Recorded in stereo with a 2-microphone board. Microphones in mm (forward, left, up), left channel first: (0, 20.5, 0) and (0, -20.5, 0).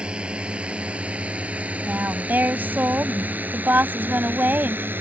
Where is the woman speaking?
50° right (ahead or behind).